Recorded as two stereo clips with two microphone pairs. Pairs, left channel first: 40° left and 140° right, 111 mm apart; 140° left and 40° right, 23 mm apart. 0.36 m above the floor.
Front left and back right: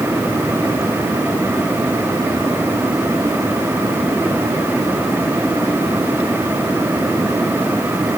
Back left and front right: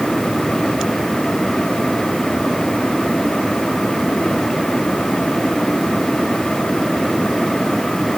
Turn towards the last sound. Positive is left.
No sound to turn to.